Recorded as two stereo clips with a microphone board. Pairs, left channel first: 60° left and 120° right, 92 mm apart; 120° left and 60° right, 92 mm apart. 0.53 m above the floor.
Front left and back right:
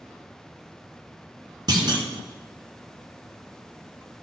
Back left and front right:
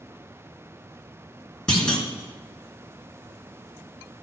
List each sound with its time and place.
1.7 s a clunk: 160° right, 2.5 m